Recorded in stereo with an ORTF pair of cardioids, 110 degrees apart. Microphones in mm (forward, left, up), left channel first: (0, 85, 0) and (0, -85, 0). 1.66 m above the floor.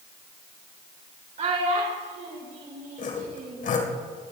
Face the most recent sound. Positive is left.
turn(degrees=50)